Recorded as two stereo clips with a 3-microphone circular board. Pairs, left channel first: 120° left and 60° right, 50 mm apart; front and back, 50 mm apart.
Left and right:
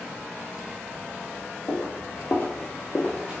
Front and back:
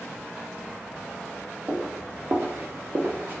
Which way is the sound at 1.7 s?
125° left.